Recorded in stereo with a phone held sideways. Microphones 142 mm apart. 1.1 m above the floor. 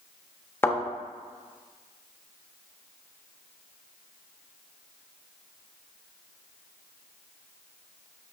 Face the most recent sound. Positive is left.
turn(degrees=15)  # may be behind; listen again after turning